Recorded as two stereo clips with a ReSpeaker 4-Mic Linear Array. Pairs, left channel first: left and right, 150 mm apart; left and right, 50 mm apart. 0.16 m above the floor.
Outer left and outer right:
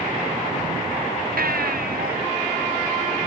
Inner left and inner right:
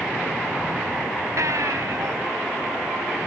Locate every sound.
1.4 s a baby crying: 80° right